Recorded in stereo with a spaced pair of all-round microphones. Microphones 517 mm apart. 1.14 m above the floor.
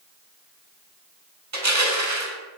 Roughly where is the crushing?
Right.